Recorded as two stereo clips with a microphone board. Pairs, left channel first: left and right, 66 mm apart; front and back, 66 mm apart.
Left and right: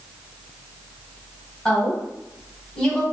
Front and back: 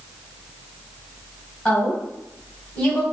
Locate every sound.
1.6 s a woman speaking: 35° left, 1.5 m